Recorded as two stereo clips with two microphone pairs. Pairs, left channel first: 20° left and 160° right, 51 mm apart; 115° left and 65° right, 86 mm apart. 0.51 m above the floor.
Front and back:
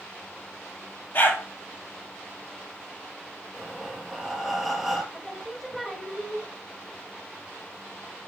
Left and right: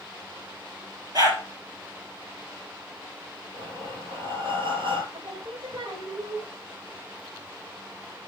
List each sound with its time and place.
1.1 s a dog barking: 20° right, 4.5 m
3.5 s breathing: 65° right, 1.8 m
5.1 s singing: 65° right, 1.4 m